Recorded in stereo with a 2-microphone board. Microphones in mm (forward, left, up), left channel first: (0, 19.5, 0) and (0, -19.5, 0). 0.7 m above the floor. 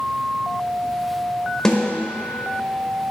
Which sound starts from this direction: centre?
A snare drum, at 1.6 s.